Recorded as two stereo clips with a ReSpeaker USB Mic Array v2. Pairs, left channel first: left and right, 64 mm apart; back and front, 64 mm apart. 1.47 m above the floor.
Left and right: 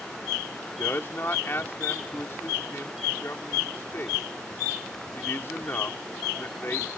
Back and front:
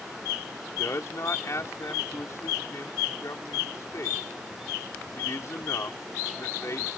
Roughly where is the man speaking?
Behind left.